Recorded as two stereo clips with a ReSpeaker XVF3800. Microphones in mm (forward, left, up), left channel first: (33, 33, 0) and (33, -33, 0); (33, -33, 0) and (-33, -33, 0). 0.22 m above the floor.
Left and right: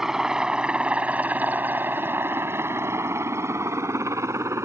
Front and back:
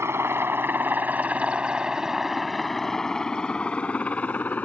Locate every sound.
0.0 s a helicopter: 170° right; by 4.7 s 60° right